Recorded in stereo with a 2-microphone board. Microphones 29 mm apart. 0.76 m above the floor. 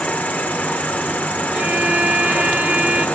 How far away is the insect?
About 1.3 m.